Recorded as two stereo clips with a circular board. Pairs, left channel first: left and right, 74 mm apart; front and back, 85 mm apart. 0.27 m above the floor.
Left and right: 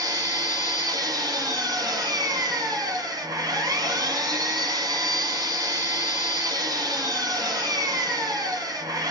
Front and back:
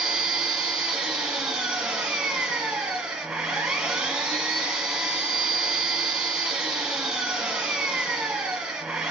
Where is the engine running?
100° right, 1.6 m.